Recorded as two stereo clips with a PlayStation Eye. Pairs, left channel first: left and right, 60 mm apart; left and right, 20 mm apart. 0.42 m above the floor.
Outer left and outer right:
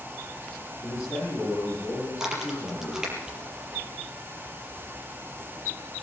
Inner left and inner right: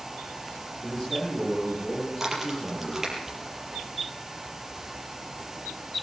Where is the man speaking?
55° left (ahead or behind), 9.5 m.